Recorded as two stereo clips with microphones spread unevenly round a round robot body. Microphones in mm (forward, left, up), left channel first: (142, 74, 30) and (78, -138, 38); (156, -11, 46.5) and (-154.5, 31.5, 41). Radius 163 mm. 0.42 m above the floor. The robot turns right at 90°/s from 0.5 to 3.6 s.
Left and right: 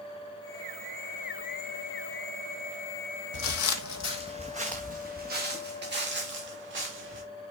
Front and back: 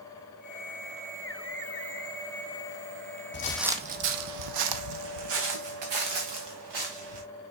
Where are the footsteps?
45° left, 1.0 m; by 7.2 s 175° right, 3.5 m.